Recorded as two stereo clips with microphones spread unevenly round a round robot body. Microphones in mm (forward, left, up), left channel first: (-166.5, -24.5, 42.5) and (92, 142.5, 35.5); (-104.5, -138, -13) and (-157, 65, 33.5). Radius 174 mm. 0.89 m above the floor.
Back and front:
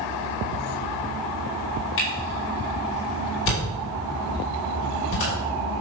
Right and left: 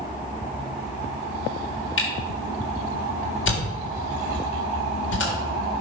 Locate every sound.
2.0 s a camera shutter: 90° right, 3.5 m